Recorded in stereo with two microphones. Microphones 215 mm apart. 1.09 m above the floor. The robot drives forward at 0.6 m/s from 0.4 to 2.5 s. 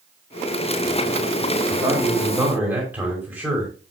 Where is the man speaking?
10° right (ahead or behind), 2 m; by 3.7 s 5° right (ahead or behind), 2.5 m.